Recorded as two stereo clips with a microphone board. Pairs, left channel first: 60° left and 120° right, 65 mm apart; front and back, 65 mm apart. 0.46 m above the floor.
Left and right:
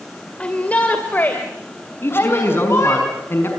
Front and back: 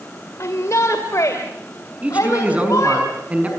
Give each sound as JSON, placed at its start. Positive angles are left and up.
{"t": 0.4, "sound": "a shout", "azimuth_deg": -5, "distance_m": 2.0}
{"t": 2.0, "sound": "a man speaking", "azimuth_deg": 115, "distance_m": 5.5}